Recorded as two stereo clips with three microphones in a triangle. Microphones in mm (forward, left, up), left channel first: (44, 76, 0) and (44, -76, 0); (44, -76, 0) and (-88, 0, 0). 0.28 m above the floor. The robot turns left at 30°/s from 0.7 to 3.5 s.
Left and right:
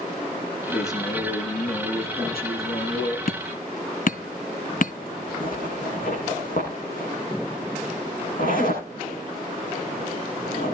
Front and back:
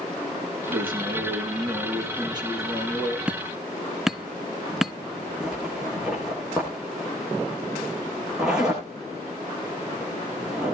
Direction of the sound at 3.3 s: 70° left.